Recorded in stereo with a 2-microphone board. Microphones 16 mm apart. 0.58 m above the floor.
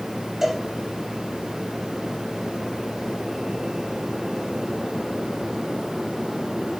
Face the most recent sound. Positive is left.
turn(degrees=-25)  # may be behind; listen again after turning